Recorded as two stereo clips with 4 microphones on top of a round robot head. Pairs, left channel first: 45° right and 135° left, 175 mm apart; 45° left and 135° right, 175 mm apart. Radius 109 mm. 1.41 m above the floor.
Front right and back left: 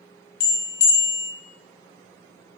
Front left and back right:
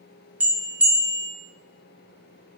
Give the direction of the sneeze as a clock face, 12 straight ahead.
I don't hear a sneeze.